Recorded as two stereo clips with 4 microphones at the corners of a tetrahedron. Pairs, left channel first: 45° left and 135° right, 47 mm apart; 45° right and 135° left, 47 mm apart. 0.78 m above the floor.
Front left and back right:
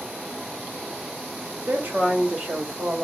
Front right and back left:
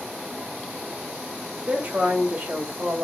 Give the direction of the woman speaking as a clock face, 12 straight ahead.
6 o'clock.